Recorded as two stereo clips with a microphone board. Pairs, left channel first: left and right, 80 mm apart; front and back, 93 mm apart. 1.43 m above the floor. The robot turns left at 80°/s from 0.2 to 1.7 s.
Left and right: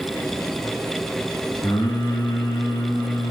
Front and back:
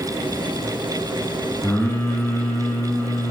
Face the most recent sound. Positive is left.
turn(degrees=65)